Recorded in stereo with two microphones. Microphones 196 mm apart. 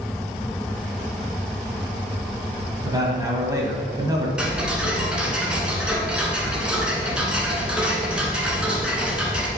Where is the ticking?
5° right (ahead or behind), 1.3 m.